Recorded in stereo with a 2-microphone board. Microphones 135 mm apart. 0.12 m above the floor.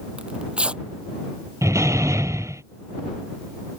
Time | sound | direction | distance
0.2 | tearing paper | 10° right (ahead or behind) | ?
1.6 | a door slam | 20° right (ahead or behind) | ?